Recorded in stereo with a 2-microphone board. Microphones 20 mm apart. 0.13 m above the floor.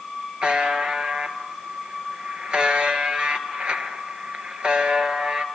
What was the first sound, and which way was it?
A buzzer, 50° right (ahead or behind).